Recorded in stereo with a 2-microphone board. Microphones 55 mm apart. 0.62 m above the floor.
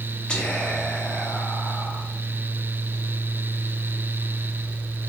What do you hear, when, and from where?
0.3 s whispering: 20° left (ahead or behind), 0.7 m